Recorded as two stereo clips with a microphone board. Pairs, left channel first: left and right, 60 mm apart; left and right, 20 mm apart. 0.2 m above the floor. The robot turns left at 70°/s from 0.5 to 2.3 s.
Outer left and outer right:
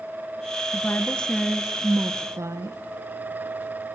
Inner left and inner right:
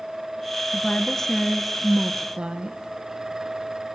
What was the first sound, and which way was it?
A woman speaking, 50° left.